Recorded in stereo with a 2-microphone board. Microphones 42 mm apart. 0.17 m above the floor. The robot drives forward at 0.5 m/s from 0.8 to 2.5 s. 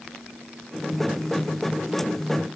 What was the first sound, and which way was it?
Only background noise.